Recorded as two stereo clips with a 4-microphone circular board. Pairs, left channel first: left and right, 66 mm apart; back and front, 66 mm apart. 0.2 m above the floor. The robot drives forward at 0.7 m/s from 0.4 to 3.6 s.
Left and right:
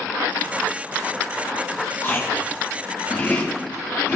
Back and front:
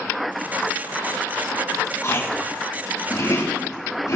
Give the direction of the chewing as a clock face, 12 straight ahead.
7 o'clock.